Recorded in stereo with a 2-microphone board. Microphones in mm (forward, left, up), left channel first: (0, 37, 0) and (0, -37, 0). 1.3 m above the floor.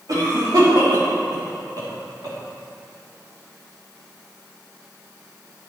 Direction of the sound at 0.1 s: 55° right (ahead or behind).